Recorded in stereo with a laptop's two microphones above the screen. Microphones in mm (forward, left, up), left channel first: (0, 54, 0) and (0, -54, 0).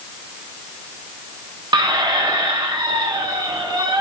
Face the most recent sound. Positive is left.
turn(degrees=-45)  # may be behind; listen again after turning